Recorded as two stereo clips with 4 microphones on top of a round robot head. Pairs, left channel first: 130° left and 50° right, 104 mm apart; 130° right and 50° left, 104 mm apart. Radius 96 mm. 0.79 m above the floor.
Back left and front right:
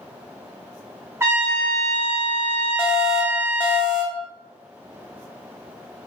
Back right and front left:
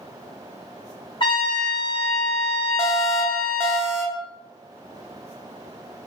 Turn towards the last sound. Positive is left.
turn(degrees=180)